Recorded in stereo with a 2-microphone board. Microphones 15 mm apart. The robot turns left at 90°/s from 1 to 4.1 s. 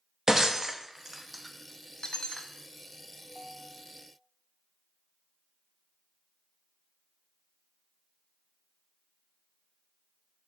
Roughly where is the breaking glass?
Right.